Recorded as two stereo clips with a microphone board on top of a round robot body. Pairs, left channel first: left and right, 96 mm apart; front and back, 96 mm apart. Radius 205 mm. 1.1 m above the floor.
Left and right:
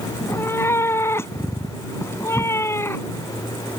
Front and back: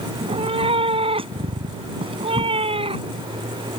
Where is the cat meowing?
155° left.